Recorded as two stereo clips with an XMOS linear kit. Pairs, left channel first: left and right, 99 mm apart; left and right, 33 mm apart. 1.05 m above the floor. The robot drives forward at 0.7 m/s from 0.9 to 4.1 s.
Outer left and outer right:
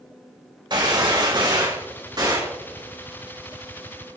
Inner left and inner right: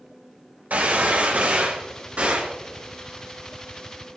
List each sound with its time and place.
0.7 s a gunshot: 55° right (ahead or behind), 4 m; by 2.6 s 45° right (ahead or behind), 5 m